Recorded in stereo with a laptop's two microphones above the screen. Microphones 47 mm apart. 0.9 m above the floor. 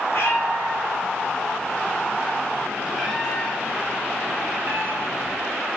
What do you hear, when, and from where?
0.1 s a cat meowing: 60° left (ahead or behind), 1.6 m; by 5.4 s 50° right (ahead or behind), 1.7 m